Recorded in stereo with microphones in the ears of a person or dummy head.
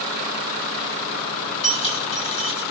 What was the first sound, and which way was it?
Keys jangling, 30° left (ahead or behind).